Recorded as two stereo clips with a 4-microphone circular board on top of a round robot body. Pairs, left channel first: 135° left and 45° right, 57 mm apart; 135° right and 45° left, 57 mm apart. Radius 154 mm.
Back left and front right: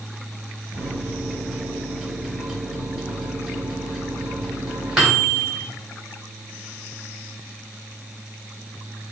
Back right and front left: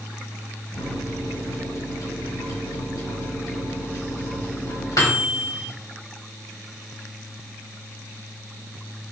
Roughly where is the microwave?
Behind right.